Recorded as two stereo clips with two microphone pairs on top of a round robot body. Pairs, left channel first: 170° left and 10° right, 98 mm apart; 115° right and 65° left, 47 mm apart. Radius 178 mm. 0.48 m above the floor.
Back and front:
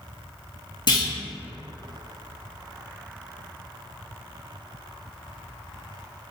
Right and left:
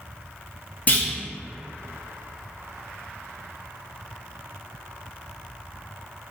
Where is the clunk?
165° right, 1.1 m.